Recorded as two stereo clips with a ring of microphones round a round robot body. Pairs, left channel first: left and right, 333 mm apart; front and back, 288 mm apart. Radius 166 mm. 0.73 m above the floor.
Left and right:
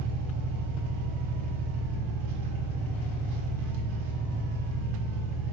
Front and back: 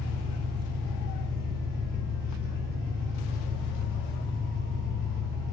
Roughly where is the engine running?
Right.